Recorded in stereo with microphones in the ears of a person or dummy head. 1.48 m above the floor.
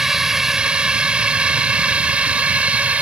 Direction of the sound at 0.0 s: 5° right (ahead or behind).